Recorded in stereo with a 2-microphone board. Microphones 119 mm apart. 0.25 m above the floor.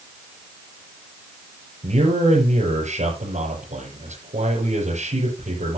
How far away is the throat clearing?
I don't hear throat clearing.